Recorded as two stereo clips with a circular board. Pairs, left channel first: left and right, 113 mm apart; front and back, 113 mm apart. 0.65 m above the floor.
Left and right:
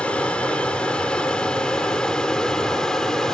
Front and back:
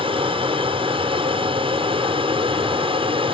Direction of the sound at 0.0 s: 170° left.